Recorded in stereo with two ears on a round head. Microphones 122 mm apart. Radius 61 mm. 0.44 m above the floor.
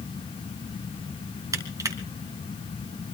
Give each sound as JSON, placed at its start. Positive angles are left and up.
{"t": 1.5, "sound": "crushing", "side_deg": -25, "distance_m": 2.5}